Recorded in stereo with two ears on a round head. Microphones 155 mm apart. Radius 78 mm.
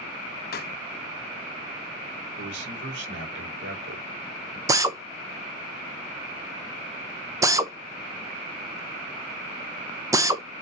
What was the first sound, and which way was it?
A pop, 60° left (ahead or behind).